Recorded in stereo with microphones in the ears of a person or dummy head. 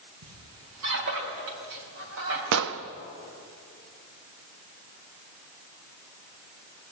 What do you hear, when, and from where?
0.2 s a squeak: 85° right, 4.5 m
2.5 s an explosion: 75° right (ahead or behind), 1.1 m